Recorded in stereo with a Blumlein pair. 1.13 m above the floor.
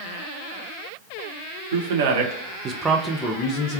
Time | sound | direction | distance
1.7 | a man speaking | 65° right | 1.0 m